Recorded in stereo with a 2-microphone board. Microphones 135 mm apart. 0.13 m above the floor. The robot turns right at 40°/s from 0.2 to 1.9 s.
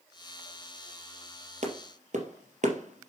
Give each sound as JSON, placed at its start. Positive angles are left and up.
{"t": 1.6, "sound": "a clap", "side_deg": -55, "distance_m": 3.0}